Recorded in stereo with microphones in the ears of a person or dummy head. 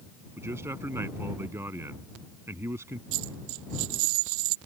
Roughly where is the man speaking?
Centre.